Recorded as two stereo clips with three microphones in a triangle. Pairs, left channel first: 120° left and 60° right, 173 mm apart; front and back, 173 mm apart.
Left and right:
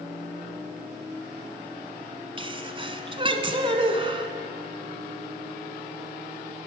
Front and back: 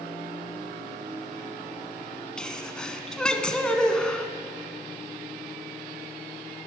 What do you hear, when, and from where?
2.4 s a sneeze: 80° right, 1.2 m